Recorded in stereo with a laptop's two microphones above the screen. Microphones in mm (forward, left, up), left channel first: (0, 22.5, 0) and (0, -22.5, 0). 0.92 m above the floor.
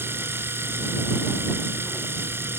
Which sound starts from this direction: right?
A machine running, at 0.0 s.